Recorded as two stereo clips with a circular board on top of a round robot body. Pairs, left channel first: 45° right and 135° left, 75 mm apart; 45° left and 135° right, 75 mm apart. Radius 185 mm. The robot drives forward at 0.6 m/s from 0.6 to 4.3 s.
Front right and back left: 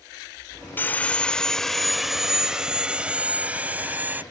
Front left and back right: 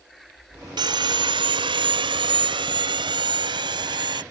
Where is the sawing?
110° right; by 4.2 s 155° right.